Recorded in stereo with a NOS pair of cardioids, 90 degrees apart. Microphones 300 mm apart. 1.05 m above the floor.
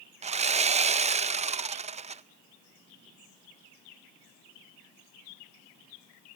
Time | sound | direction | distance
0.2 | sawing | 25° right | 0.5 m